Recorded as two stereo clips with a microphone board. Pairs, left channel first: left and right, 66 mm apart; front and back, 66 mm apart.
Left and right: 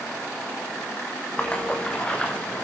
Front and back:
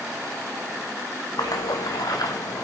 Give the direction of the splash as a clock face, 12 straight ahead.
11 o'clock.